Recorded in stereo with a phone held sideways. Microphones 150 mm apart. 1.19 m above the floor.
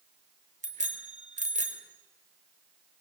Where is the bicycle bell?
55° right (ahead or behind), 3 m.